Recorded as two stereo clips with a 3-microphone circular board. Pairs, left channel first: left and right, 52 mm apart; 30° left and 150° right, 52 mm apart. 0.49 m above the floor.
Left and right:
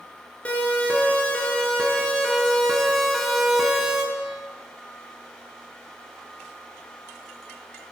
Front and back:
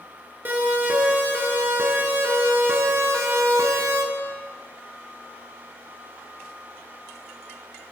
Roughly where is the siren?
Behind left.